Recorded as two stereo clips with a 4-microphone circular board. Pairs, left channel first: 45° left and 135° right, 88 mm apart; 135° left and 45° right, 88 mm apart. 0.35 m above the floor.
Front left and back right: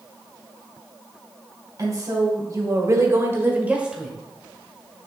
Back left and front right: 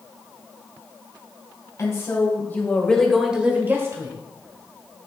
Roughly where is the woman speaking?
Behind.